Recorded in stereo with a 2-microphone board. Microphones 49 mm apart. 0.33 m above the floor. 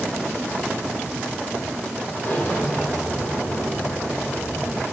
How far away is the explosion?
About 6 m.